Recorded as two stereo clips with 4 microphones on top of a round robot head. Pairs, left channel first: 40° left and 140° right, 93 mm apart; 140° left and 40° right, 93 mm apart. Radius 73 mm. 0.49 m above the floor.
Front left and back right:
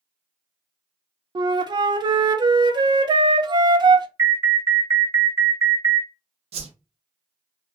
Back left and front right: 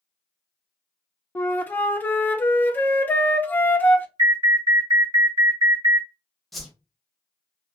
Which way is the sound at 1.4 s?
155° right.